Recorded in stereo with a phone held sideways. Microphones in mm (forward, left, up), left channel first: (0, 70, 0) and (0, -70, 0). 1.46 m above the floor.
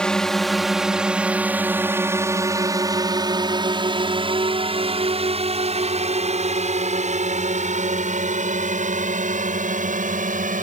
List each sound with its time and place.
0.0 s a drone: 5° left (ahead or behind); by 10.6 s 65° right (ahead or behind)